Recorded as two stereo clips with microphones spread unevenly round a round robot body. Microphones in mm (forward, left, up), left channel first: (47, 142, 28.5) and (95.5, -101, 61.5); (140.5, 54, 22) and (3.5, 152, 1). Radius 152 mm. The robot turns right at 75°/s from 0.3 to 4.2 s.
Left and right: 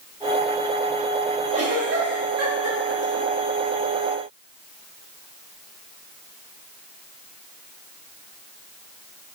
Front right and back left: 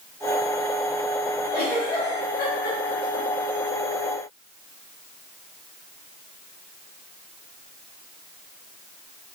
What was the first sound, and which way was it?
A giggle, 150° right.